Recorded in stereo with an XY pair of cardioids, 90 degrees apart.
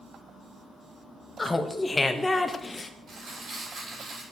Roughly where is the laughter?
Ahead left.